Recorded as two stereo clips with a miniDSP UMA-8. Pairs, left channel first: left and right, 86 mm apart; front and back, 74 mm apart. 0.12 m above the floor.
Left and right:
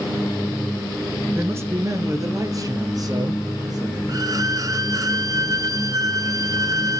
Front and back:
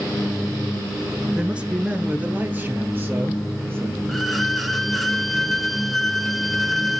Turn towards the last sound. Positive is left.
turn(degrees=-90)